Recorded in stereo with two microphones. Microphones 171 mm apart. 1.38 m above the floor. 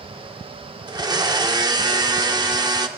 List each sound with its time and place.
0.9 s a blender: 25° right (ahead or behind), 1.4 m